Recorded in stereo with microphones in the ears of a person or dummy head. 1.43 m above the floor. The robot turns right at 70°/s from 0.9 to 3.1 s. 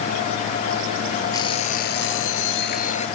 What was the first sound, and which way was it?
An alarm clock, 20° left.